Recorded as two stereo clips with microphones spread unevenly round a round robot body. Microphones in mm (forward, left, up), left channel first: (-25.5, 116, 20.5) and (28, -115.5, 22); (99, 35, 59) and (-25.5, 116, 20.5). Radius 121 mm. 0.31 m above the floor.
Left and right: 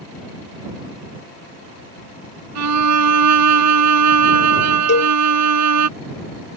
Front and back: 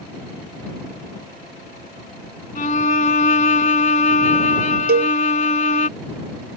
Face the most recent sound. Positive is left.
turn(degrees=150)